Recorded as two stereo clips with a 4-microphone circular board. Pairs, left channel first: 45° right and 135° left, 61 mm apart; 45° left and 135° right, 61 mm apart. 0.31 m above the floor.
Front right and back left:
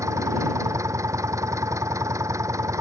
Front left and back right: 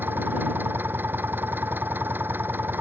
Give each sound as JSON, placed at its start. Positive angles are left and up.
{"t": 0.0, "sound": "an engine running", "azimuth_deg": 170}